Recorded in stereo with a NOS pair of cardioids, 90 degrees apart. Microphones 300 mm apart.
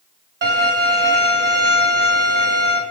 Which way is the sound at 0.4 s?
40° right.